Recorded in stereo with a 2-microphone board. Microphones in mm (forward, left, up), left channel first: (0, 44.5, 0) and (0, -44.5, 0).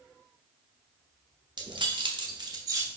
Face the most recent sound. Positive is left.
turn(degrees=-30)  # may be behind; listen again after turning